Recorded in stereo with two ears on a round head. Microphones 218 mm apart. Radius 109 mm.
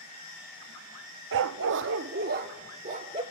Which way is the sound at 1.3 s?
55° right (ahead or behind).